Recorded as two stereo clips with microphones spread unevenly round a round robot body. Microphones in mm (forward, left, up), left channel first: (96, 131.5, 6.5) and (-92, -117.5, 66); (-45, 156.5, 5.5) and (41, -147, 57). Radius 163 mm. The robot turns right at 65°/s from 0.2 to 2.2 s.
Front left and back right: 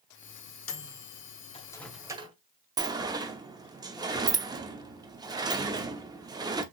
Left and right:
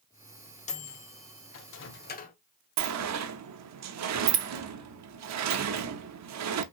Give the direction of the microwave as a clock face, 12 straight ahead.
10 o'clock.